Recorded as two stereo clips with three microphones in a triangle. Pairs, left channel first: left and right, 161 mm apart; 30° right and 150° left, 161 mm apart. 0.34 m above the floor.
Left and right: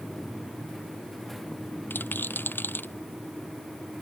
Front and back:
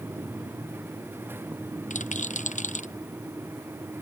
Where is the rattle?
10° left.